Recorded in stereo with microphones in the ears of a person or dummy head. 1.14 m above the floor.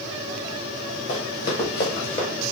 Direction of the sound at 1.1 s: 60° left (ahead or behind).